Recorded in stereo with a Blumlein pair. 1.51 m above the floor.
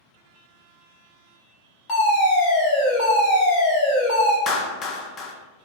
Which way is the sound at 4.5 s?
25° left.